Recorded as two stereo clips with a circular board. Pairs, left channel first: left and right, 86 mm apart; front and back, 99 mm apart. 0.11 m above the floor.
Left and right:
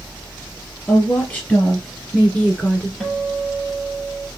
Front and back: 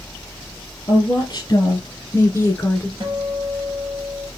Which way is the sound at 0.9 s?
25° left.